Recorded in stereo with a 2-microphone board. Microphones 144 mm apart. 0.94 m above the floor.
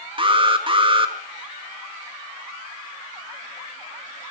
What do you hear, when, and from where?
0.2 s an alarm: 35° right (ahead or behind), 2.5 m